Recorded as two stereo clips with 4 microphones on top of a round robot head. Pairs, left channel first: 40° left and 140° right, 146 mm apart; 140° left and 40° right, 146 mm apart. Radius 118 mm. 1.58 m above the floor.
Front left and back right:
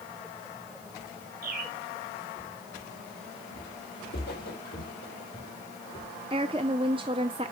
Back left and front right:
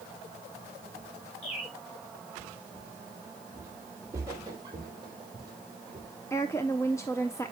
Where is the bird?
175° right, 3.5 m.